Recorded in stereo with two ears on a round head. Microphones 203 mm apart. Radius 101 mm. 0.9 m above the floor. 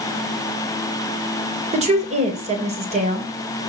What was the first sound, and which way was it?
A woman speaking, 30° right (ahead or behind).